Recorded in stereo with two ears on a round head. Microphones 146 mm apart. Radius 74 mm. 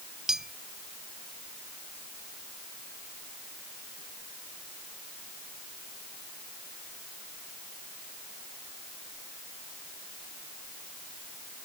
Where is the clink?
Centre (ahead or behind).